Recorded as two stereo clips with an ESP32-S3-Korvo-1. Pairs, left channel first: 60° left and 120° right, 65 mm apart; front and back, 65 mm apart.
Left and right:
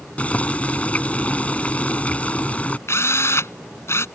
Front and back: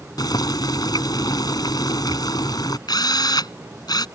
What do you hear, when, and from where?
0.2 s boiling: 10° right
2.9 s a drill: 10° left